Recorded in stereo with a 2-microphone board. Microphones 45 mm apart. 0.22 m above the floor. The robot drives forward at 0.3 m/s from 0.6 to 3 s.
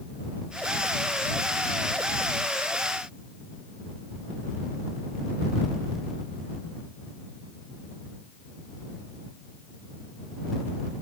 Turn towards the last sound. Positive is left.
No sound to turn to.